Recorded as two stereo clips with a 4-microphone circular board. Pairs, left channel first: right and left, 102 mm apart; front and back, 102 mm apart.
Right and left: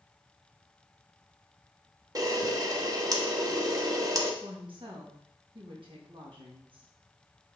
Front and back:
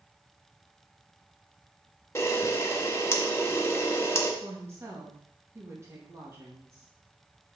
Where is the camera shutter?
55° left, 1.2 m.